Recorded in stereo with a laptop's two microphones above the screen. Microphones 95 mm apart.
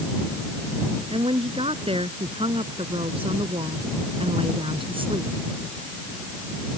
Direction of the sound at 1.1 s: 85° right.